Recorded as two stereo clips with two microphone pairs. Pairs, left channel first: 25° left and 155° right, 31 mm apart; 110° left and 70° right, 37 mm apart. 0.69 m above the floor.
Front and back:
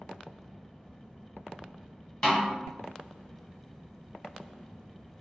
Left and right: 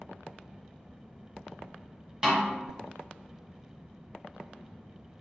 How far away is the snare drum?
About 1.0 m.